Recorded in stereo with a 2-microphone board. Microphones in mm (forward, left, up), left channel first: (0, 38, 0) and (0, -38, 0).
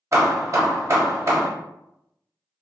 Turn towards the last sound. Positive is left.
turn(degrees=-40)  # may be behind; listen again after turning